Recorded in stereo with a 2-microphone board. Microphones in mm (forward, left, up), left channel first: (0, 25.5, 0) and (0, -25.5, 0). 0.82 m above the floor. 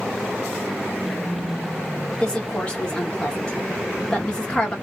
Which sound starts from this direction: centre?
A woman speaking, at 2.2 s.